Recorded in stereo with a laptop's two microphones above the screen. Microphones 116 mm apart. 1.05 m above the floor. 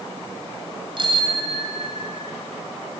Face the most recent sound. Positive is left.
turn(degrees=-70)  # may be behind; listen again after turning